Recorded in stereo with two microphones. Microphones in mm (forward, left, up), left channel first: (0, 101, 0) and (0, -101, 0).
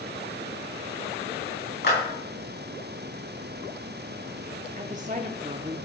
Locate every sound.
1.8 s a clap: 60° left (ahead or behind), 5 m
4.8 s a woman speaking: 40° right (ahead or behind), 0.8 m